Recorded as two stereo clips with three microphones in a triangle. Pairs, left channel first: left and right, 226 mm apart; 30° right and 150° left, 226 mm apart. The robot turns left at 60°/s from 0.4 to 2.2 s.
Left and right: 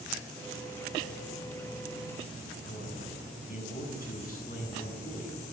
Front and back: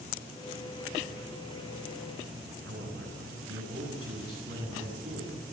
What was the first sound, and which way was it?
A man speaking, 140° left.